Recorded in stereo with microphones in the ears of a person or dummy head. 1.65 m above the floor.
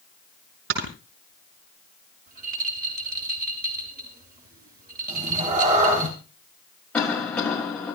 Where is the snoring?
80° right, 5 m.